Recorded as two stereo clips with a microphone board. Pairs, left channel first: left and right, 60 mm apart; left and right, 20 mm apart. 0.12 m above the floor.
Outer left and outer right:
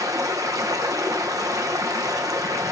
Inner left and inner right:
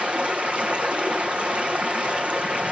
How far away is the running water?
About 0.8 m.